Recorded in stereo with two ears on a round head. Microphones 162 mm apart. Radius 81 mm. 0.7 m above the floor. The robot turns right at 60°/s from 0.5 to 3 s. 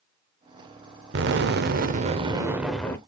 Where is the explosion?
95° right, 0.5 m; by 3.0 s 15° left, 0.5 m.